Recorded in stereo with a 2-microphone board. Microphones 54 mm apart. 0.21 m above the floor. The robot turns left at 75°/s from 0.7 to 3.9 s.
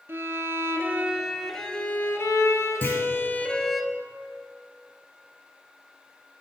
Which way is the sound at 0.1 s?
125° right.